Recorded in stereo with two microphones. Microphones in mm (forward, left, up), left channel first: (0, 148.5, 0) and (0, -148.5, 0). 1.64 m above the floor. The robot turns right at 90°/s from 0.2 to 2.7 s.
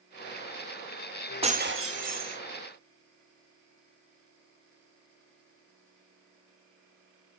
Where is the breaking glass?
160° right, 1.5 m; by 2.4 s 75° right, 1.5 m.